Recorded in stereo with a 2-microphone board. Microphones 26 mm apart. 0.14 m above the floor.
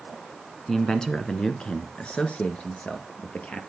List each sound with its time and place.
0.7 s a man speaking: 20° left (ahead or behind), 1.1 m; by 3.6 s 65° left (ahead or behind), 2.5 m